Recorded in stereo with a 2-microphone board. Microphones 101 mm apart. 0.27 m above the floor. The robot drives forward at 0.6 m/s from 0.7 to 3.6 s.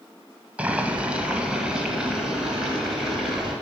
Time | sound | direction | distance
0.6 | boiling | 15° right (ahead or behind) | 0.8 m